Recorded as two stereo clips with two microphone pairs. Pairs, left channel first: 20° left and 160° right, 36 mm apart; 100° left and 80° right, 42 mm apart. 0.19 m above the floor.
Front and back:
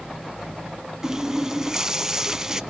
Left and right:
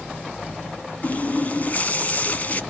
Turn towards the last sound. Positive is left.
turn(degrees=130)